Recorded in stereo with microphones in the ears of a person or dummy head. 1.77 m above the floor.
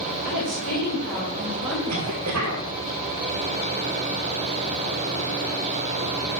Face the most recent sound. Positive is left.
turn(degrees=-70)  # may be behind; listen again after turning